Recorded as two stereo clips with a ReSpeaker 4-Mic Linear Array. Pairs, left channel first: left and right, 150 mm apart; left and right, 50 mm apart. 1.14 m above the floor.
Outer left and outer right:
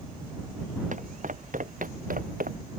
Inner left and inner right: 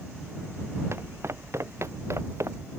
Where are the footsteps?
55° right (ahead or behind); by 2.6 s 65° right (ahead or behind).